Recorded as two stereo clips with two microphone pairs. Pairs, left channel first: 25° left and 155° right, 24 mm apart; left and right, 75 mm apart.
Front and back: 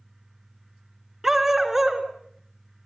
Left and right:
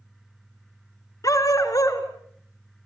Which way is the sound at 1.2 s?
130° left.